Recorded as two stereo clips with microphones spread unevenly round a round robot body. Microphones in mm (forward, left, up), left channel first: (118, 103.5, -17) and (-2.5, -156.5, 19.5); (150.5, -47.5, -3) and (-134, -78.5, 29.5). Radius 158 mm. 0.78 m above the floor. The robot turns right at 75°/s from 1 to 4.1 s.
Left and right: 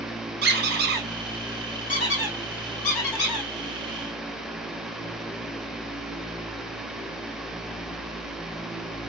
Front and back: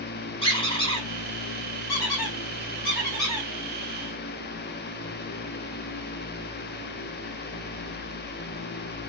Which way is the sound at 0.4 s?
70° right.